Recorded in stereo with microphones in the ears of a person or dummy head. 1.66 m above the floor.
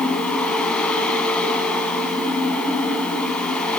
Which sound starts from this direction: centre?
A fan, at 0.0 s.